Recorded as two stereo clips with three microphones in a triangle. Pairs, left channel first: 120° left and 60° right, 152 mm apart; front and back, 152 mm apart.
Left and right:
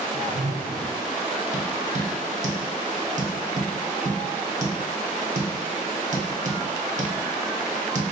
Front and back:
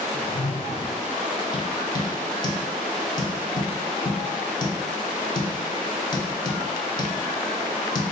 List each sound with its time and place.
0.1 s a whoosh: 40° right, 0.6 m
1.5 s tapping: 55° right, 0.7 m